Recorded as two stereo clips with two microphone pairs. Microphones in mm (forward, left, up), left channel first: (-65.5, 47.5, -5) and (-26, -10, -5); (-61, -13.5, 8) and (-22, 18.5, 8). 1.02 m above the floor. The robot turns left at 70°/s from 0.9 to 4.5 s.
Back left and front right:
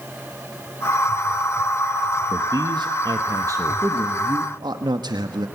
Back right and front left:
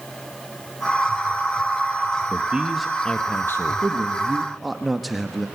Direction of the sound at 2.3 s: 15° right.